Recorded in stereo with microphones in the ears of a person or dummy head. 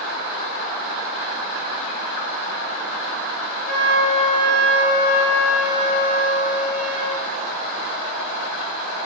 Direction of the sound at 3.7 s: 70° left (ahead or behind).